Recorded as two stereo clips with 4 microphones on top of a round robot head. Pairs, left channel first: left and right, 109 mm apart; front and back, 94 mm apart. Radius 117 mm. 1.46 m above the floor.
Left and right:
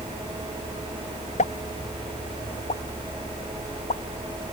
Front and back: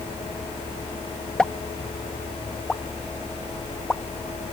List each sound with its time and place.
1.4 s a pop: 80° left